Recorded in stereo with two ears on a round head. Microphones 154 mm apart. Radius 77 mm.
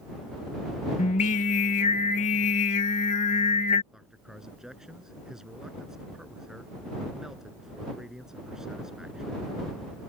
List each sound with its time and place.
1.0 s singing: 40° left (ahead or behind)
3.9 s a man speaking: 5° right (ahead or behind)